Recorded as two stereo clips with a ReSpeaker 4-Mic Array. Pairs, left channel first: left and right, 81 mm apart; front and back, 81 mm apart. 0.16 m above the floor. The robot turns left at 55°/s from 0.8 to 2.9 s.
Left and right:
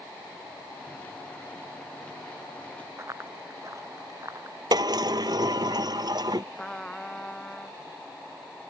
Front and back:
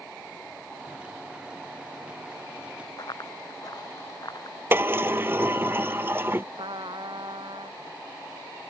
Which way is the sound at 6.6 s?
170° left.